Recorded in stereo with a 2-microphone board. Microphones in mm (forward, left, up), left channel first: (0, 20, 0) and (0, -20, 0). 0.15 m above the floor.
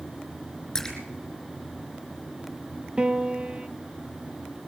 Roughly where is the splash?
Centre.